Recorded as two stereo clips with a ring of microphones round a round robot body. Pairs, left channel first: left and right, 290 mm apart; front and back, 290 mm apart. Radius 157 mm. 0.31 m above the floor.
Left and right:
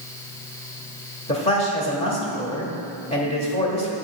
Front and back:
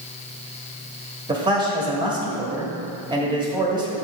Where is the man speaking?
130° left, 1.3 m.